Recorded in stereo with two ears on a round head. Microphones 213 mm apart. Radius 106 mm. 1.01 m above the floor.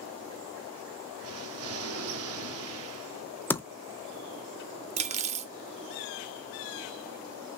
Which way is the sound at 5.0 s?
30° right (ahead or behind).